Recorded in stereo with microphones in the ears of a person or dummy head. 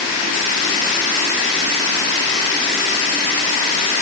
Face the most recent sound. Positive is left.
No sound to turn to.